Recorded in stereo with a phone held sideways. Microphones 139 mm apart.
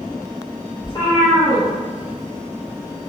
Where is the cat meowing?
35° left (ahead or behind), 1.8 m; by 3.1 s 5° right (ahead or behind), 1.2 m.